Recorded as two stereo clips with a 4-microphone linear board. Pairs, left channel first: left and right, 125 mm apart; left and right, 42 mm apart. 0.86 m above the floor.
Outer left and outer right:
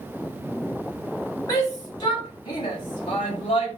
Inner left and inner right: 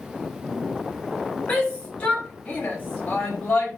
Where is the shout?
30° left (ahead or behind), 6 m; by 3.8 s 50° left (ahead or behind), 6.5 m.